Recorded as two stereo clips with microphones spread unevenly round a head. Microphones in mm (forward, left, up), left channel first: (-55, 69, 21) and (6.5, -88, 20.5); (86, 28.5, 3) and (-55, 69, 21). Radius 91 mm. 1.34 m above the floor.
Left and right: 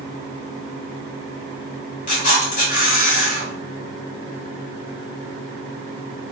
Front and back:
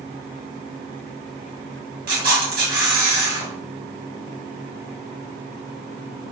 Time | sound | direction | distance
2.1 | a camera shutter | 155° left | 2 m